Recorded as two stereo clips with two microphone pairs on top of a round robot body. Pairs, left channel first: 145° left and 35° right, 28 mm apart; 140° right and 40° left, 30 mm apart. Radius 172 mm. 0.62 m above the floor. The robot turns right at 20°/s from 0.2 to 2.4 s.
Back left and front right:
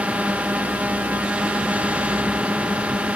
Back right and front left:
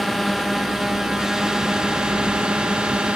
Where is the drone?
55° right; by 3.2 s 10° right.